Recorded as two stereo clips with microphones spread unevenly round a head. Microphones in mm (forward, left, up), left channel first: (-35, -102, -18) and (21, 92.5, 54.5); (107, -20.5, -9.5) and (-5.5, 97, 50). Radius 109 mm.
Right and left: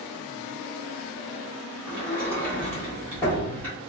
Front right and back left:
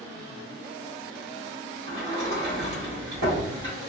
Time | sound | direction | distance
1.9 | a sliding door | 175° left | 1.3 m